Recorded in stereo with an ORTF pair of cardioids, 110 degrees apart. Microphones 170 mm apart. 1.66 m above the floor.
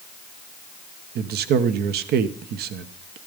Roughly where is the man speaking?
Right.